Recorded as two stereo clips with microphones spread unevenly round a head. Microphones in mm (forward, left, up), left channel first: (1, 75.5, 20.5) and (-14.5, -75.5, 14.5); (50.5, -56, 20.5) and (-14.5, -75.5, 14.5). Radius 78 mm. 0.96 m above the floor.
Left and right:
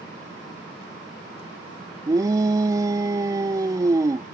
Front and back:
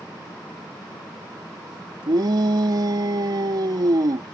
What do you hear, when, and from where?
2.1 s a shout: 160° right